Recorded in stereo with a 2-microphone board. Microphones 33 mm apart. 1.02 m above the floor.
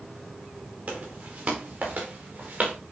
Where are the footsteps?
40° right (ahead or behind), 6 m.